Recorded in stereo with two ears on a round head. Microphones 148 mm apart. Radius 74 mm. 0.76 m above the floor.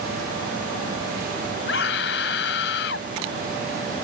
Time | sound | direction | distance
1.7 | a scream | 75° left (ahead or behind) | ?